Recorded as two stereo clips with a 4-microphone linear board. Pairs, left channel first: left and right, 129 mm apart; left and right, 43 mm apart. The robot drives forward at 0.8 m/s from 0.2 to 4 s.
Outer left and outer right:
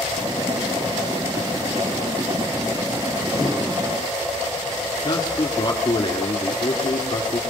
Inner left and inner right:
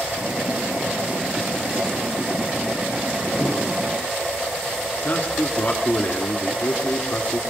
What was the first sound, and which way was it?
A whoosh, 20° left (ahead or behind).